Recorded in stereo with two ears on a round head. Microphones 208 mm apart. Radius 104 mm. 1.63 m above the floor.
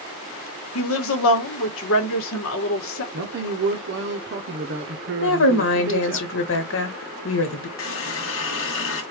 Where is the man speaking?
50° right (ahead or behind), 0.7 m.